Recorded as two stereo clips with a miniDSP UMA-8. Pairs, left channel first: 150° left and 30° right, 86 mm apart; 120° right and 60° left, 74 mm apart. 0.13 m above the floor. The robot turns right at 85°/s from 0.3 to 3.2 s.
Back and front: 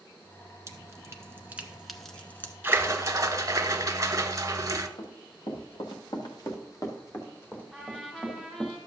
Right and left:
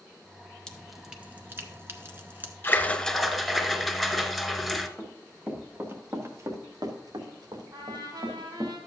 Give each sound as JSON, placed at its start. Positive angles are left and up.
{"t": 0.7, "sound": "dripping", "azimuth_deg": -50, "distance_m": 1.0}
{"t": 2.6, "sound": "a splash", "azimuth_deg": -80, "distance_m": 0.9}
{"t": 5.0, "sound": "running footsteps", "azimuth_deg": 140, "distance_m": 2.5}
{"t": 7.7, "sound": "a trumpet", "azimuth_deg": 70, "distance_m": 3.0}